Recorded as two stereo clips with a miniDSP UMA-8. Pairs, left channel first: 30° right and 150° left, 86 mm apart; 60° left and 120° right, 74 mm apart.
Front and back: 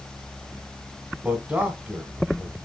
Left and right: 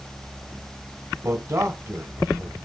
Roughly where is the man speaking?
Behind right.